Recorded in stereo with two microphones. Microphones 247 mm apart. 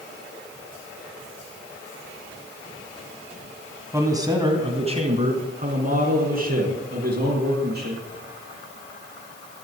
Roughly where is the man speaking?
Centre.